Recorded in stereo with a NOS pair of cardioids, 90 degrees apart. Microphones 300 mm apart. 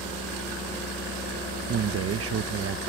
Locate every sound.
1.7 s a man speaking: 50° right